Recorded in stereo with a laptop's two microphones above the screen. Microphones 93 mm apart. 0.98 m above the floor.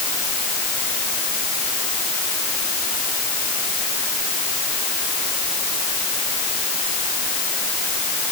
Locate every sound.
Only background noise.